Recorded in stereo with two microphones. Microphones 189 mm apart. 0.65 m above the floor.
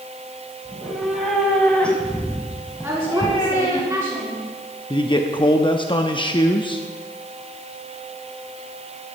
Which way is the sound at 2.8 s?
15° right (ahead or behind).